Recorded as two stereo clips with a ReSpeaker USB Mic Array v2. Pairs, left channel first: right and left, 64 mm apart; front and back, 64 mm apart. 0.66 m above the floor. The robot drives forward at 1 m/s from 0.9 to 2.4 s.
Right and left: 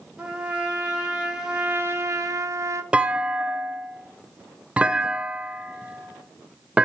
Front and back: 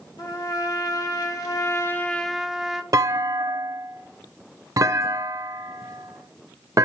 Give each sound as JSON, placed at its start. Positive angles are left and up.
{"t": 0.2, "sound": "a trumpet", "azimuth_deg": 20, "distance_m": 1.6}
{"t": 2.9, "sound": "a clunk", "azimuth_deg": 160, "distance_m": 0.6}